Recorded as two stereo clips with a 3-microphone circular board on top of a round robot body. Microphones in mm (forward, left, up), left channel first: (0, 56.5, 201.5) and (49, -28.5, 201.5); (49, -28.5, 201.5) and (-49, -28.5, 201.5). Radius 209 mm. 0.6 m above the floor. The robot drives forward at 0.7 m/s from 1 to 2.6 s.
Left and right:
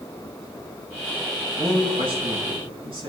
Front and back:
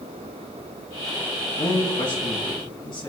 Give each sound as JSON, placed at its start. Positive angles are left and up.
{"t": 1.6, "sound": "a man speaking", "azimuth_deg": -30, "distance_m": 7.0}